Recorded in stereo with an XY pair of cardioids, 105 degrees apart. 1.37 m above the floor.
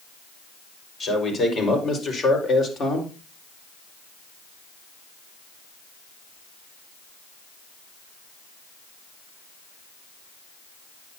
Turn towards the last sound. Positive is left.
turn(degrees=50)